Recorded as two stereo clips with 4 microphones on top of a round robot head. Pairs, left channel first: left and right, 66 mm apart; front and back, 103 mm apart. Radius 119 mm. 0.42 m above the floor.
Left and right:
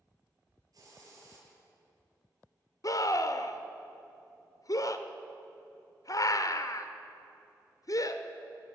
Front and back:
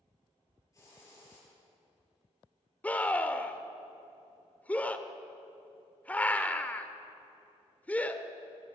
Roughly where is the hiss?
Ahead right.